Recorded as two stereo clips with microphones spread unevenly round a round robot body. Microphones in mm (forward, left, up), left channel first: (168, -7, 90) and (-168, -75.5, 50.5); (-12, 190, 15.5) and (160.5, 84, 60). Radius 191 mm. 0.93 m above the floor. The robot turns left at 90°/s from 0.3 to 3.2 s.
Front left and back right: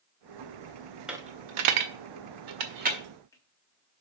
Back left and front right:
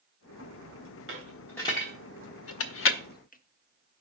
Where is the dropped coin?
80° right, 0.7 m; by 4.0 s 90° left, 0.7 m.